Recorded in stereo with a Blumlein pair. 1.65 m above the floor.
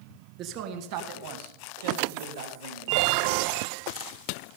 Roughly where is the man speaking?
Ahead right.